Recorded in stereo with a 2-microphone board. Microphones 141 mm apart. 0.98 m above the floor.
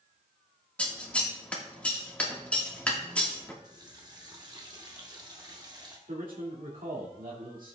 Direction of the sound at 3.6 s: 30° right (ahead or behind).